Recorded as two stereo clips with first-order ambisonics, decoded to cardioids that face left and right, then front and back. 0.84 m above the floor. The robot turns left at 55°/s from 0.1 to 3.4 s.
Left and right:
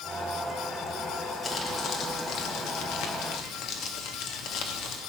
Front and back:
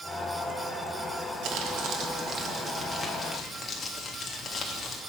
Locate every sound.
1.4 s crumpling: 170° left, 1.6 m; by 5.0 s 65° left, 1.6 m